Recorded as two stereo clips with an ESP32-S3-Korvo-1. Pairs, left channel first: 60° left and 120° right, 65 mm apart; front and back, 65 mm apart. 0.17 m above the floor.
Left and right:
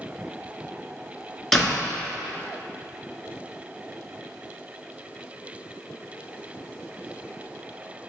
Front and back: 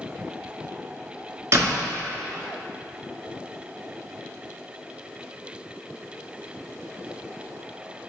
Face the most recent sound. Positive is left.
turn(degrees=145)